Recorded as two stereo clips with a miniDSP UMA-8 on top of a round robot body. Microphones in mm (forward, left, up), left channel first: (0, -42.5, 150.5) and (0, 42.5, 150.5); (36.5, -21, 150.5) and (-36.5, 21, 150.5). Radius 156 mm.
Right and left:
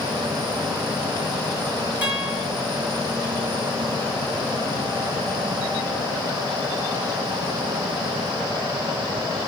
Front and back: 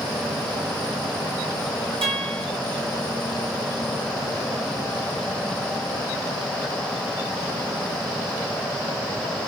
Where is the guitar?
160° left, 8 m.